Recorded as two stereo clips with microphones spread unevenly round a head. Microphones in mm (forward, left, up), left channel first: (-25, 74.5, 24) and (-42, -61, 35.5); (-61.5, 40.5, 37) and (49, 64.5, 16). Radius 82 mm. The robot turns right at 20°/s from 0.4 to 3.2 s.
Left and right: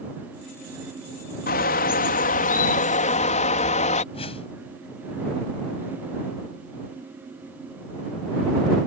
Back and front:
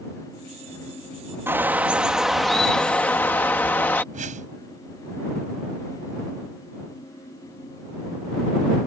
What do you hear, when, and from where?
1.5 s a bird: 80° left; by 4.0 s 115° left
4.1 s a whoosh: 25° left